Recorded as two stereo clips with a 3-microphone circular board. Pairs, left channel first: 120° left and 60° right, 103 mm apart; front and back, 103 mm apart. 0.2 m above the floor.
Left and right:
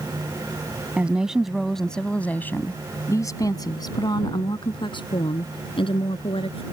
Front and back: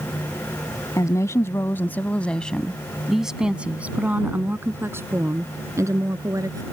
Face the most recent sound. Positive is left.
turn(degrees=130)